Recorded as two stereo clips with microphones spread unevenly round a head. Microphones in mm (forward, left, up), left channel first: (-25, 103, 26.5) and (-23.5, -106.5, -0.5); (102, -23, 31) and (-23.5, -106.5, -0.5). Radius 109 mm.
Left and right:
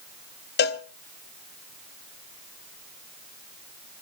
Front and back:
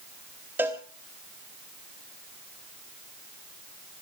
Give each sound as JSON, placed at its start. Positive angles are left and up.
{"t": 0.6, "sound": "a cowbell", "azimuth_deg": 130, "distance_m": 0.9}